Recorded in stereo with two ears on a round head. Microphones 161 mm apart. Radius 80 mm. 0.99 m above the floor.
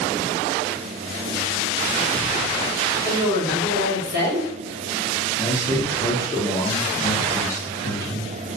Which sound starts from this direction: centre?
A man speaking, at 5.4 s.